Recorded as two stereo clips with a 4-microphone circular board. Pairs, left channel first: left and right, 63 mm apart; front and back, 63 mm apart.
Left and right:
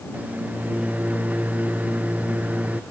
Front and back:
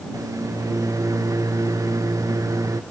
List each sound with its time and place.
0.1 s a microwave: 155° right